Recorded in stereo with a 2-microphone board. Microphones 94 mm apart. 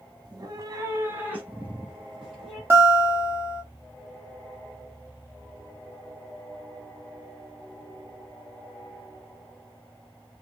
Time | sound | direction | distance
0.2 | a cat meowing | 50° right (ahead or behind) | 1.0 m
2.7 | a guitar | 25° right (ahead or behind) | 1.6 m